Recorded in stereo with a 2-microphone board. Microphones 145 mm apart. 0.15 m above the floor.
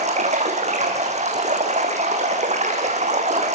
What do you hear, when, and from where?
0.0 s running water: 50° right (ahead or behind), 5 m